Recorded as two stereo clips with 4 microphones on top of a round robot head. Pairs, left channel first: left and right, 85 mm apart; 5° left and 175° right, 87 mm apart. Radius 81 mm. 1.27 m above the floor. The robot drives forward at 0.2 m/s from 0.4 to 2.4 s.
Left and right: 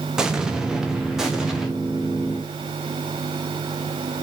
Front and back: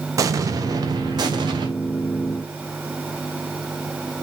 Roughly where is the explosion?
Behind.